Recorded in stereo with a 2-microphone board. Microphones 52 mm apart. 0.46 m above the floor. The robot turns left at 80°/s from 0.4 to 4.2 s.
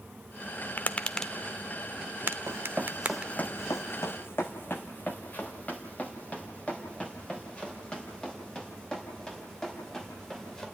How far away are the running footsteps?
About 1.2 m.